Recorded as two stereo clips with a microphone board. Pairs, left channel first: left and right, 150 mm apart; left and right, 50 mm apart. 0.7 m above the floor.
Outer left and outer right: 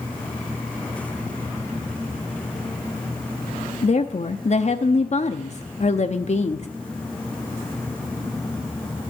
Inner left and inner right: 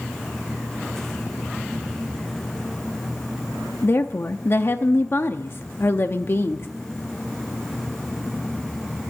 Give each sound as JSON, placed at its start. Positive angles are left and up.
{"t": 3.8, "sound": "a woman speaking", "side_deg": 50, "distance_m": 0.7}